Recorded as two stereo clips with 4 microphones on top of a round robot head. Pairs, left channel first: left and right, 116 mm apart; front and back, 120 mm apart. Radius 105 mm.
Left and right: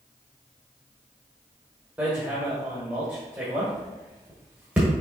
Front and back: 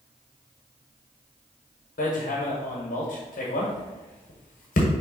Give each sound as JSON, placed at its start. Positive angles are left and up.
{"t": 2.0, "sound": "hammering", "azimuth_deg": -10, "distance_m": 1.1}